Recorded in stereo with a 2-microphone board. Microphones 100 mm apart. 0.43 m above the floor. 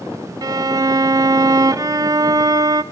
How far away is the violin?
About 0.6 m.